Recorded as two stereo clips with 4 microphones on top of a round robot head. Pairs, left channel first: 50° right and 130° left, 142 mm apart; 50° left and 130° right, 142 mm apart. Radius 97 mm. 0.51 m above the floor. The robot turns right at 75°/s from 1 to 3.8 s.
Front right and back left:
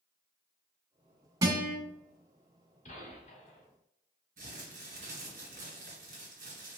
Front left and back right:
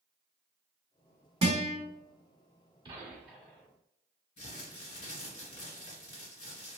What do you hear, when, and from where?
1.4 s a guitar: 170° right, 1.7 m; by 1.8 s 145° right, 1.7 m
2.9 s a gunshot: 75° right, 1.5 m; by 3.7 s 10° right, 1.5 m
4.4 s crumpling: 95° left, 1.8 m